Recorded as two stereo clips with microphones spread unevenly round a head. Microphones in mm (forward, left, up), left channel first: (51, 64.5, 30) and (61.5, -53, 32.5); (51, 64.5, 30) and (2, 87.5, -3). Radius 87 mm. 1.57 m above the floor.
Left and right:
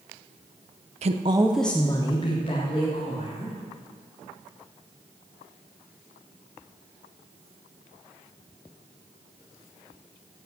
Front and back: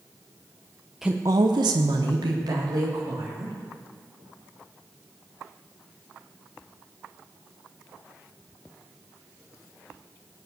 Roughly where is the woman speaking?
Right.